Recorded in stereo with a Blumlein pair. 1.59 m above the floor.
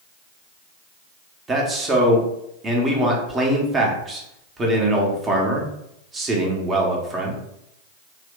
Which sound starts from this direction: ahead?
A man speaking, at 1.5 s.